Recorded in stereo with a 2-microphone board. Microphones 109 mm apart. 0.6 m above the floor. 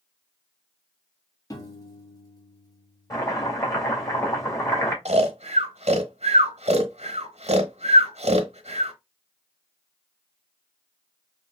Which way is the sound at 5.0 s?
80° right.